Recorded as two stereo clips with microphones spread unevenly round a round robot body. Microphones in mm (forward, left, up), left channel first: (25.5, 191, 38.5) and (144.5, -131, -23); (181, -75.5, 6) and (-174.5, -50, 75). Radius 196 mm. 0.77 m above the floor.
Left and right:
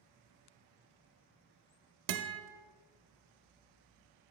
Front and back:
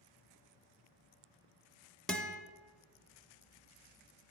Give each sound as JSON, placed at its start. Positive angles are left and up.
{"t": 2.1, "sound": "a guitar", "azimuth_deg": -95, "distance_m": 0.5}